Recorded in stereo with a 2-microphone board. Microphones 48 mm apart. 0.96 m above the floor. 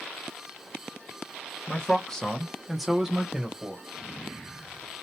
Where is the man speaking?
20° left (ahead or behind), 0.8 m; by 3.8 s 20° right (ahead or behind), 1.1 m.